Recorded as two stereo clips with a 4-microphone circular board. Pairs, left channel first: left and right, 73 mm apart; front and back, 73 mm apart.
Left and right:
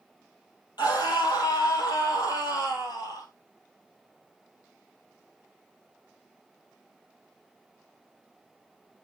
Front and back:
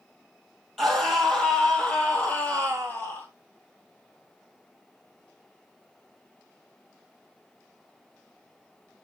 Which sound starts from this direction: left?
A scream, at 0.8 s.